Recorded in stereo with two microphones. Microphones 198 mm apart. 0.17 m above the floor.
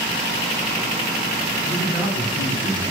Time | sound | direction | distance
1.6 | a man speaking | 35° left (ahead or behind) | 2.5 m